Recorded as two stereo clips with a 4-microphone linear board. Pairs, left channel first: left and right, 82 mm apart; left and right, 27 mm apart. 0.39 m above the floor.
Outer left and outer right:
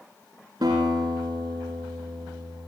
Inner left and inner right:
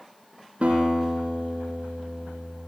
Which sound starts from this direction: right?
A guitar, at 0.6 s.